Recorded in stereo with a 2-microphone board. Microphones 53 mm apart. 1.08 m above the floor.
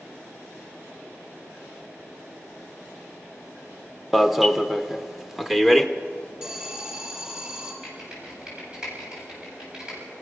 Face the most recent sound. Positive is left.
turn(degrees=-15)  # may be behind; listen again after turning